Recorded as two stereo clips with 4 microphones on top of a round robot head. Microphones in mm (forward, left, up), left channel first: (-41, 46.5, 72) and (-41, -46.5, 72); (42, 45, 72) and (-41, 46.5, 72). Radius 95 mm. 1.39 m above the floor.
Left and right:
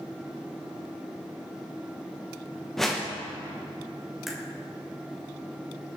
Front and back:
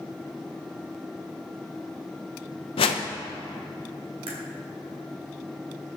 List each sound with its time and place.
2.8 s a whoosh: straight ahead, 0.9 m
4.3 s a crack: 175° right, 2.5 m